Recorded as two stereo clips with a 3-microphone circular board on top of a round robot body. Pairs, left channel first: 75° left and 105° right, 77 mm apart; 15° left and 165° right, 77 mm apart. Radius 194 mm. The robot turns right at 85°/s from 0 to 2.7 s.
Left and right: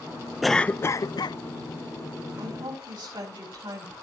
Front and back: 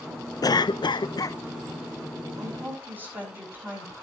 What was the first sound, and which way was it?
A cough, 15° right.